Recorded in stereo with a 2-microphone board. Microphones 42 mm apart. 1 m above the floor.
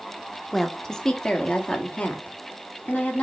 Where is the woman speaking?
5° left (ahead or behind), 1.1 m; by 3.2 s 40° left (ahead or behind), 2.5 m.